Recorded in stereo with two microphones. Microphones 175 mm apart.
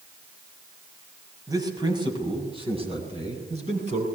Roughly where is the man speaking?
Right.